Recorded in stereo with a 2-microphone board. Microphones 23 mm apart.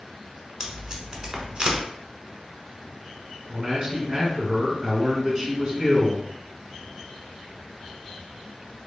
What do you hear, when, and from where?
0.6 s tape being pulled: 40° right (ahead or behind), 1.1 m
3.5 s a man speaking: 30° right (ahead or behind), 1.6 m